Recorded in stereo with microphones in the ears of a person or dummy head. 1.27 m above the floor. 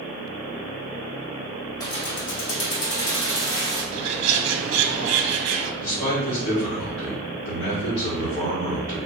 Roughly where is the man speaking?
Left.